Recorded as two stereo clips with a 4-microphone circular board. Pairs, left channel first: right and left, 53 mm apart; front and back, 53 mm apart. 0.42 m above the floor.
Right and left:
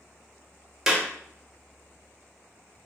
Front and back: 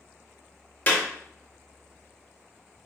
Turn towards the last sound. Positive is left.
turn(degrees=20)